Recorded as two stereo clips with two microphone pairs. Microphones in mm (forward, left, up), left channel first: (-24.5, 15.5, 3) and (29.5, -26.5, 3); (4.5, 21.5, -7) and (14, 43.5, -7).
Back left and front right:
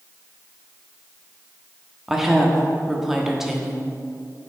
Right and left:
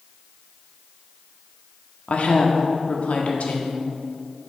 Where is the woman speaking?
125° right, 1.1 m.